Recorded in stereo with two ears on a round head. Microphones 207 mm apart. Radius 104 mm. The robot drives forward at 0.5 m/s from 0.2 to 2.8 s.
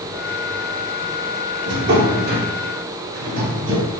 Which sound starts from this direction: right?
A drawer, at 1.7 s.